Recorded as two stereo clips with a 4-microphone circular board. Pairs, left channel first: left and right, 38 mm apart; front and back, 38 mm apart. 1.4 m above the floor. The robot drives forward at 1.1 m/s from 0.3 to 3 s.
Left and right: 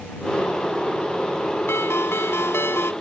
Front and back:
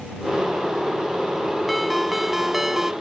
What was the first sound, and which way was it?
A ringtone, 90° left.